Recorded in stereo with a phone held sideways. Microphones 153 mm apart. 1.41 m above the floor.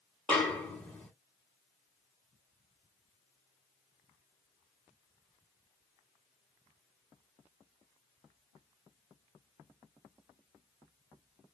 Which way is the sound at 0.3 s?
10° left (ahead or behind).